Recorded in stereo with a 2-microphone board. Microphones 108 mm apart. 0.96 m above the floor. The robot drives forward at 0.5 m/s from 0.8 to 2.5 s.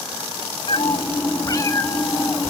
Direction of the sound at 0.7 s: 55° left (ahead or behind).